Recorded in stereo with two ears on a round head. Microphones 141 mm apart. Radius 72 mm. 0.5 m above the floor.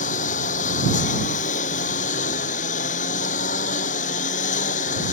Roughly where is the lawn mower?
Left.